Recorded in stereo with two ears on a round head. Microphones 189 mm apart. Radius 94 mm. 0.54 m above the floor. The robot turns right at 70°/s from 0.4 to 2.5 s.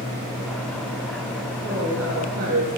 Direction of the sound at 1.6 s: 145° right.